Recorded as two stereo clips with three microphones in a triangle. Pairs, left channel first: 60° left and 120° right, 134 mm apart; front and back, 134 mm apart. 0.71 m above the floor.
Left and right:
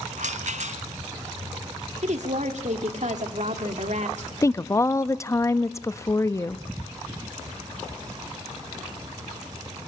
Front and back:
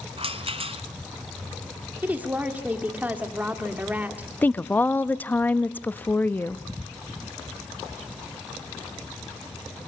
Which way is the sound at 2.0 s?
105° right.